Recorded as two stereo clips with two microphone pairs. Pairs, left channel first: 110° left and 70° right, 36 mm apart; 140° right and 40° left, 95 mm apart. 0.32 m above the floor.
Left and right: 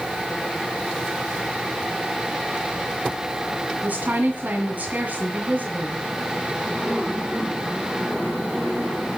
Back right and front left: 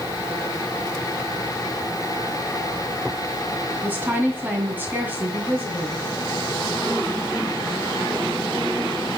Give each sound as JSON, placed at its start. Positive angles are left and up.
{"t": 3.8, "sound": "a woman speaking", "azimuth_deg": -30, "distance_m": 2.0}